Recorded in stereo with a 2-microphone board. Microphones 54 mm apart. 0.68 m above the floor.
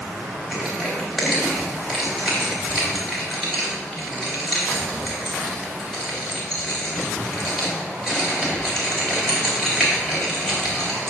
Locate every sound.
0.5 s crushing: 5° left (ahead or behind), 3.5 m